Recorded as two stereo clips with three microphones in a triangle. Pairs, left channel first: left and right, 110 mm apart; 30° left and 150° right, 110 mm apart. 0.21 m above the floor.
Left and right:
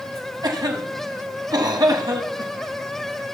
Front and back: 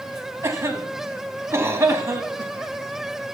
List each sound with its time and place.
0.4 s a cough: 100° right, 1.3 m